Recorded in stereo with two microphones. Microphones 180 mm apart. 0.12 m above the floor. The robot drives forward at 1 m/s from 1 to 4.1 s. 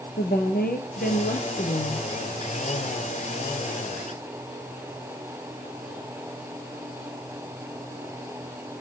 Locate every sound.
0.2 s a woman speaking: 60° left (ahead or behind), 2 m